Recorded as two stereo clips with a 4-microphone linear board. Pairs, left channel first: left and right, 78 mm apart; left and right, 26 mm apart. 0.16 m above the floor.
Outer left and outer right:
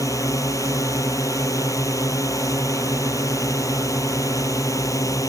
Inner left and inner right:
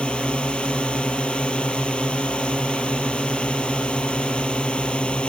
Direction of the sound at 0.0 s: 50° left (ahead or behind).